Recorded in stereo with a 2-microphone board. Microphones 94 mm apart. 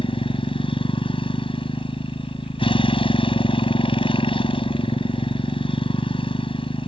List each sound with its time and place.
0.0 s a motorcycle: 70° left (ahead or behind)